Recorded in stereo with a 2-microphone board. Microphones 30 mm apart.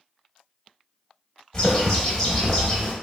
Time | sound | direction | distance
1.5 | a bird | 15° left (ahead or behind) | 0.8 m